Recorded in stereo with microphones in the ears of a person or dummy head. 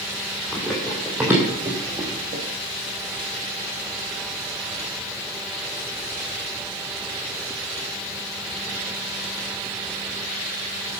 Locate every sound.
0.5 s running footsteps: 5° left (ahead or behind), 3.5 m; by 2.4 s 35° right (ahead or behind), 3.5 m